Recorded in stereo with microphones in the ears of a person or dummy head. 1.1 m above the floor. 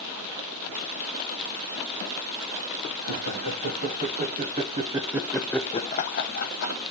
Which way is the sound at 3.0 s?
60° right (ahead or behind).